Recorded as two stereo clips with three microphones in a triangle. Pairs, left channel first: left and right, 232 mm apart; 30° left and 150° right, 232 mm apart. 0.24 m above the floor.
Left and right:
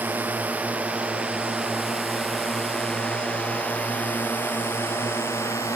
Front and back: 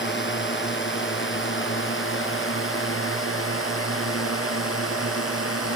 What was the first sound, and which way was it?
A drone, 10° right.